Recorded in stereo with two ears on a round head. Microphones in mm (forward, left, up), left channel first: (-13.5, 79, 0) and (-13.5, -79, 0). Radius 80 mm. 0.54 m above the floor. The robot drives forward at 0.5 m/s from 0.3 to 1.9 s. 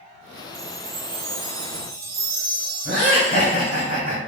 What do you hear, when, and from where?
0.5 s a chime: 65° right (ahead or behind), 0.7 m; by 3.9 s 60° right (ahead or behind), 0.7 m
2.9 s laughter: 45° right (ahead or behind), 1.8 m